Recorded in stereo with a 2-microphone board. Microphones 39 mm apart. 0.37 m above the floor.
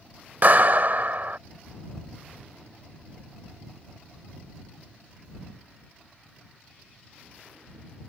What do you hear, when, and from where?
0.4 s a clap: 50° right (ahead or behind)